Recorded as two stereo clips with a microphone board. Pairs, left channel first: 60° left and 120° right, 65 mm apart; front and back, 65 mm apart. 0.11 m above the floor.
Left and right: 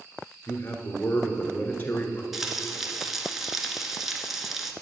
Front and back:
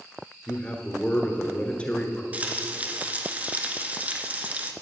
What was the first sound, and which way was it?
A man speaking, 50° left.